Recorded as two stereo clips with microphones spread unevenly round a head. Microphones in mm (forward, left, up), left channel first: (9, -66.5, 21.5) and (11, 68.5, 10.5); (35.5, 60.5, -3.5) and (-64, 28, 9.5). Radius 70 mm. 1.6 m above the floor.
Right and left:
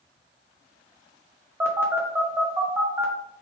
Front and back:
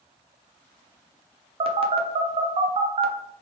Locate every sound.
1.6 s a phone buzzing: 165° left, 0.6 m